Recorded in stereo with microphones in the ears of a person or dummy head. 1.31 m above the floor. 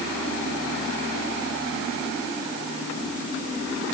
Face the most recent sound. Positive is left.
No sound to turn to.